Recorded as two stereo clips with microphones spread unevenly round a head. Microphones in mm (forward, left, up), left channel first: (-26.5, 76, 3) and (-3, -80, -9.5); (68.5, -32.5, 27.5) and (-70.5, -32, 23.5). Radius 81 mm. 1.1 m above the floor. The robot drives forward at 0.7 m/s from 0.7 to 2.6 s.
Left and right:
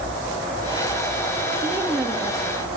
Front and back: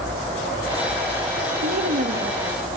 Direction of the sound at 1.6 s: 160° right.